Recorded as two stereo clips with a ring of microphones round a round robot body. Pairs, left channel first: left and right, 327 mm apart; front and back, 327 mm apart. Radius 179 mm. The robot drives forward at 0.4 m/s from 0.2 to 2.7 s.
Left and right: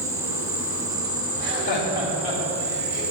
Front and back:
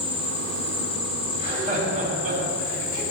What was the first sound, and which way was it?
An insect, 10° right.